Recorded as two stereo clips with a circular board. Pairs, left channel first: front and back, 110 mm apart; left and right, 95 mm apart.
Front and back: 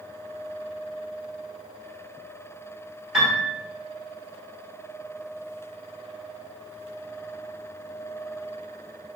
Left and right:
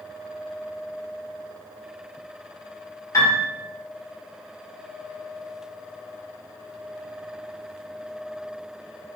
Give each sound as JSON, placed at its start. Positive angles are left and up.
{"t": 3.1, "sound": "a piano", "azimuth_deg": 100, "distance_m": 1.3}